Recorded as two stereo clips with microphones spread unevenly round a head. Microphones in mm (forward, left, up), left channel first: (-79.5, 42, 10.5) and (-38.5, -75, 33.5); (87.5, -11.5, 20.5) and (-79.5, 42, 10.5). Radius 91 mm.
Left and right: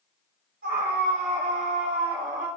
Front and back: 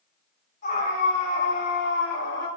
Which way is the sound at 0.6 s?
65° right.